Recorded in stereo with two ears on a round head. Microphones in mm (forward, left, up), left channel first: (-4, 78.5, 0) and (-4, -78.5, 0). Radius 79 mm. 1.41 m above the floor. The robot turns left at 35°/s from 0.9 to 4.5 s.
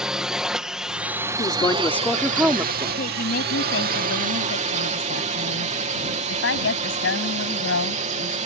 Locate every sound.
0.0 s a drone: 5° right; by 8.5 s 130° right
1.4 s a woman speaking: 30° left; by 2.9 s 25° right
3.0 s a woman speaking: 135° left; by 8.4 s 80° left